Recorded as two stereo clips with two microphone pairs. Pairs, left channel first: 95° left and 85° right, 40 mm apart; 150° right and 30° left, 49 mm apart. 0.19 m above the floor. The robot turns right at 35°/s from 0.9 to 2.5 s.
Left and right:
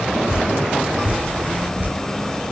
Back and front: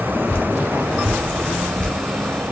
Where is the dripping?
125° right, 1.0 m; by 1.9 s 90° right, 1.0 m.